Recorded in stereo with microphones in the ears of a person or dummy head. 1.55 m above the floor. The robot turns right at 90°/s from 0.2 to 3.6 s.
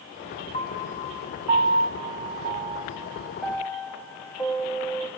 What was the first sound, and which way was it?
A piano, 35° left (ahead or behind).